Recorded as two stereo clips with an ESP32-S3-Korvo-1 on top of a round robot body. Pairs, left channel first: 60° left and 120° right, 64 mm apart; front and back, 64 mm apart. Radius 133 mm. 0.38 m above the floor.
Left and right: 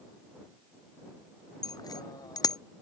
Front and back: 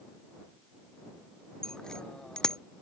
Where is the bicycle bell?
80° left.